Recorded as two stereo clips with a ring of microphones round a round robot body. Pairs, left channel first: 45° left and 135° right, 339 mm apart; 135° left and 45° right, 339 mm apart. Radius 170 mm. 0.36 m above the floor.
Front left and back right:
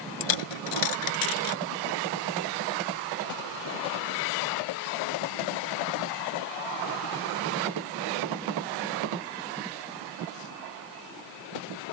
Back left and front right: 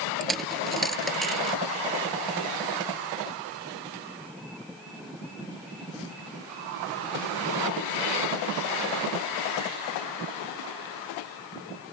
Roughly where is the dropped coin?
Ahead left.